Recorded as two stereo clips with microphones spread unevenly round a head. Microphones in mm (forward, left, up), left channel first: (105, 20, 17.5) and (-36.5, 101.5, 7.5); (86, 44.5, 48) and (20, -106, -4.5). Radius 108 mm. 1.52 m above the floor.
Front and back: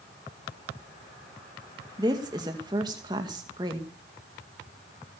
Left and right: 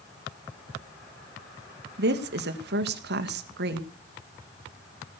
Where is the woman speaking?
140° right, 2 m.